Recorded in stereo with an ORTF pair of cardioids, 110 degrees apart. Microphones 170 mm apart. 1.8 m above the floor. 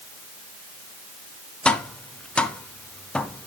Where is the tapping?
5° left, 0.7 m.